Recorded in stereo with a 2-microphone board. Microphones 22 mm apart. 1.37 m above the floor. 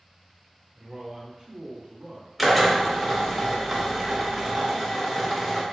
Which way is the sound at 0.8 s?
40° right (ahead or behind).